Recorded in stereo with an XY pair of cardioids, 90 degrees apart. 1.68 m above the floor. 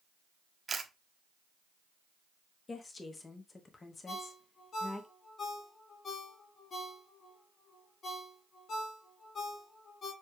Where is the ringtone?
55° left, 2 m.